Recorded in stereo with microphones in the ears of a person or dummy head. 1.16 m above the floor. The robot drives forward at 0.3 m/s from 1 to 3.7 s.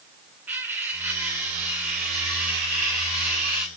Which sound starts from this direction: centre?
Cutlery clinking, at 0.5 s.